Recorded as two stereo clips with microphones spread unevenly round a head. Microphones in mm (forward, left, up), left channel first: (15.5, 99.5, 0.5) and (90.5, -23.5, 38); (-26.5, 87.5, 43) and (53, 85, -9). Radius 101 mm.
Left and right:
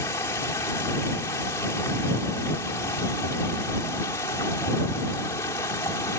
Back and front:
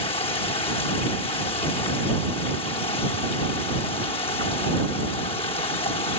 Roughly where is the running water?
Behind.